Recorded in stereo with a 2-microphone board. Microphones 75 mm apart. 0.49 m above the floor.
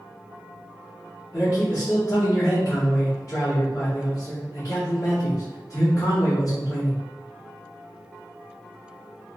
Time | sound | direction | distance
1.3 | a man speaking | 45° left (ahead or behind) | 1.4 m